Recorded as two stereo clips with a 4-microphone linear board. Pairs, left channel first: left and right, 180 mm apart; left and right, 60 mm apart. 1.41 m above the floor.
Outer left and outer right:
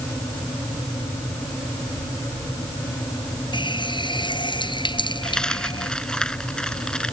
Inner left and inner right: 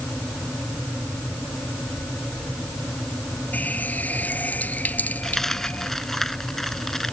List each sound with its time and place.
3.5 s a running tap: 25° left (ahead or behind)
5.2 s a dropped coin: 5° left (ahead or behind)